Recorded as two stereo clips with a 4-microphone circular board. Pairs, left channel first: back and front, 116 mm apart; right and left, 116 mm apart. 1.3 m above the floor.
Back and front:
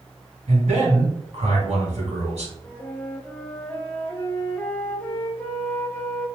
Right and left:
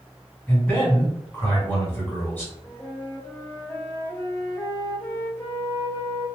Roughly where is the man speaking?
Ahead.